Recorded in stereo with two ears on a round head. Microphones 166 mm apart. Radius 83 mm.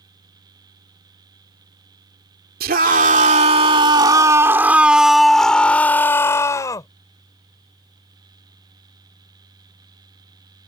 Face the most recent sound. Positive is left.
turn(degrees=20)  # may be behind; listen again after turning